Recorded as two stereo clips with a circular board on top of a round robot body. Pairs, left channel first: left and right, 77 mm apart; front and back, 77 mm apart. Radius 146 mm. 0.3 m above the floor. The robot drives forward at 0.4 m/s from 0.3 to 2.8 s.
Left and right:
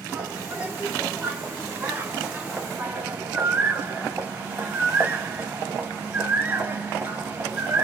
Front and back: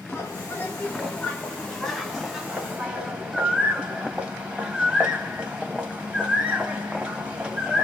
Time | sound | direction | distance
0.1 | a bird | 35° right | 1.5 m